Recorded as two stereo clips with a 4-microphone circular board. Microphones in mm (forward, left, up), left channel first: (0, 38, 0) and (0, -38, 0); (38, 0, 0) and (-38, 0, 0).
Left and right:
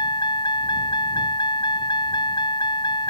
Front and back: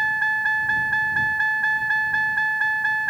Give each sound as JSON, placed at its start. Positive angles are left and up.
{"t": 0.0, "sound": "a vehicle", "azimuth_deg": 90}